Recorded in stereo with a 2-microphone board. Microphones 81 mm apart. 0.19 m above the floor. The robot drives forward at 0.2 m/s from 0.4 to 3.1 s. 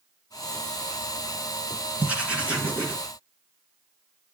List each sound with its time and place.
2.0 s writing: 15° right (ahead or behind), 2.5 m